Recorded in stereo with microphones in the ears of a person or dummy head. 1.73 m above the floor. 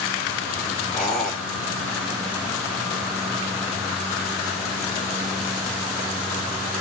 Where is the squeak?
5° left (ahead or behind), 3 m.